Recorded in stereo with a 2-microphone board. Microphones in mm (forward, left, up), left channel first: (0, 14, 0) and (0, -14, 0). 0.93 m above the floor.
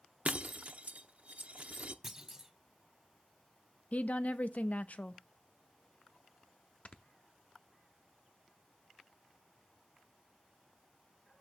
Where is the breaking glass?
60° right (ahead or behind), 0.7 m.